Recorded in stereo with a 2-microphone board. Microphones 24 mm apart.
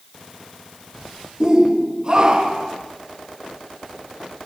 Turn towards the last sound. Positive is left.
turn(degrees=-40)  # may be behind; listen again after turning